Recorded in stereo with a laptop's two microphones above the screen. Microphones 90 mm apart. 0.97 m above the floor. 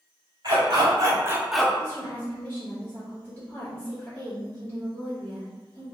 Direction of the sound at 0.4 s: 50° right (ahead or behind).